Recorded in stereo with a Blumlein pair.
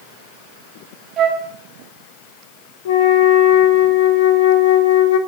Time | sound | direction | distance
1.2 | a flute | 30° right | 1.8 m
2.9 | a flute | 55° left | 1.1 m